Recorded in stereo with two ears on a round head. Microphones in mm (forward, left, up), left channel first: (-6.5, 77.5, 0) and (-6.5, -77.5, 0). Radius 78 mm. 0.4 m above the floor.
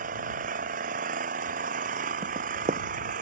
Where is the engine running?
50° right (ahead or behind).